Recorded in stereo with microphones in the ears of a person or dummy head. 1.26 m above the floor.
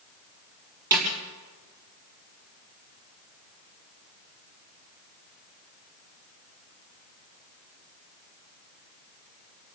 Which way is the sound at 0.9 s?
20° right (ahead or behind).